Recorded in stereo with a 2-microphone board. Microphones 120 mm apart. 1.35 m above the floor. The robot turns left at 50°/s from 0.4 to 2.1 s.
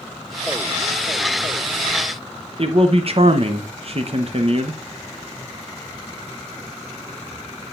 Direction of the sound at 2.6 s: 50° right (ahead or behind).